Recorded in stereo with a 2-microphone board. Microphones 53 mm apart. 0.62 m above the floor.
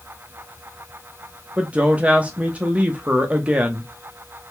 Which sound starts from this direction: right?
A woman speaking, at 1.6 s.